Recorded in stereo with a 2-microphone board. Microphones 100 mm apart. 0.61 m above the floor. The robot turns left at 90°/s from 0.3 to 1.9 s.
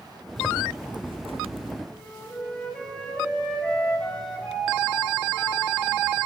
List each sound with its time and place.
0.4 s a zipper: 5° left, 0.6 m; by 1.8 s 125° right, 0.6 m
1.9 s a flute: 10° left (ahead or behind), 4 m